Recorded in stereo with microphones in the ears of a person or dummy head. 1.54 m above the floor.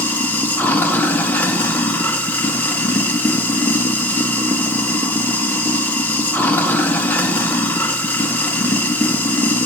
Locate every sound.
0.0 s running water: 10° left (ahead or behind), 0.7 m